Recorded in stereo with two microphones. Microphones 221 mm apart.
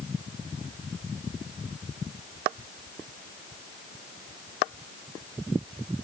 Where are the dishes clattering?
No dishes clattering in this recording.